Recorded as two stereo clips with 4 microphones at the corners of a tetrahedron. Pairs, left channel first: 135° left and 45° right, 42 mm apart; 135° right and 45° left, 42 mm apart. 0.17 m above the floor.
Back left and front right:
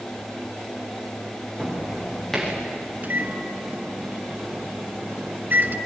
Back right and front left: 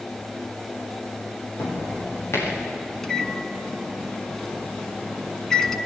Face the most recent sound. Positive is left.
turn(degrees=-60)